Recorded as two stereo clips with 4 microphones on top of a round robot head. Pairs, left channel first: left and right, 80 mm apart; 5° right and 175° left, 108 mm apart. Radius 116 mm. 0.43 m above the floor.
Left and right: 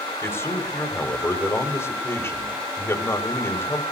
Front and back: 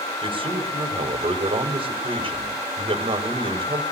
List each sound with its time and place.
0.2 s a man speaking: 145° left, 3 m